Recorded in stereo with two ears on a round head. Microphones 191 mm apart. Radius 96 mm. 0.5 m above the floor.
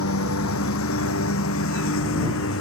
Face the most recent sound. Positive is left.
turn(degrees=65)  # may be behind; listen again after turning